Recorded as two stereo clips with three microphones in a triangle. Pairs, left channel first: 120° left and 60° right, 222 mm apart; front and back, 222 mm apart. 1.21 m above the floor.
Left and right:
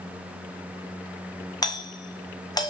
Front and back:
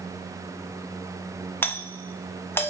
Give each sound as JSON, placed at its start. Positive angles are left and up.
{"t": 1.6, "sound": "a doorbell", "azimuth_deg": 70, "distance_m": 1.0}